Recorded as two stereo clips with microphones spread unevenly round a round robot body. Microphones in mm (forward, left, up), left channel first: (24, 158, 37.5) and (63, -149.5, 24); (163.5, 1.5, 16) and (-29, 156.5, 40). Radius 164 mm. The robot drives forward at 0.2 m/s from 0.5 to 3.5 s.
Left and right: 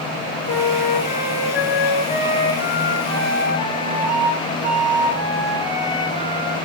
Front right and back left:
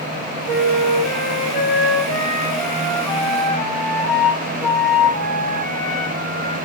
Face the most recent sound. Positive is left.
turn(degrees=170)